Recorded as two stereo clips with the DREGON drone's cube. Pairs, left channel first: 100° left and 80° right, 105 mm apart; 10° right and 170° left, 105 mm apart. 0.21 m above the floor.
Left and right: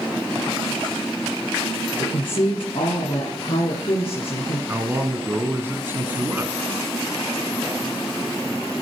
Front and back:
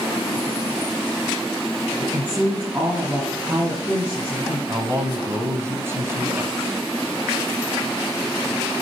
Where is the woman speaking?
100° left, 2 m.